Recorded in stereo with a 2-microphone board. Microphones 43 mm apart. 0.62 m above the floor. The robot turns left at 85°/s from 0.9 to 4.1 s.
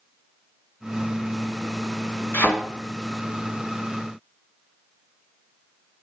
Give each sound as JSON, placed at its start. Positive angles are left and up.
{"t": 2.3, "sound": "a thud", "side_deg": 55, "distance_m": 2.5}